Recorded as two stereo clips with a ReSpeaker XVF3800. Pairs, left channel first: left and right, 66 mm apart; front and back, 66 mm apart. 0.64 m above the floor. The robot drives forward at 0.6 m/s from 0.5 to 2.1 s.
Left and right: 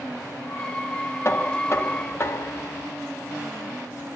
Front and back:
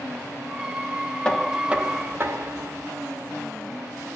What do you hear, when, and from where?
1.2 s knocking: 70° left, 0.5 m; by 2.9 s 135° left, 0.6 m